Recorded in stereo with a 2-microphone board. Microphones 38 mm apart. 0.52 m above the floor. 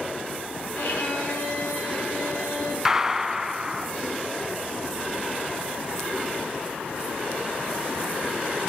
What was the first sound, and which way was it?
A violin, 75° left (ahead or behind).